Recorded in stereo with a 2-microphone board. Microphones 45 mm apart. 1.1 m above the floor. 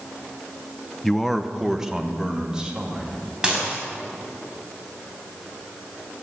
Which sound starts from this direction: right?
Dishes clattering, at 3.4 s.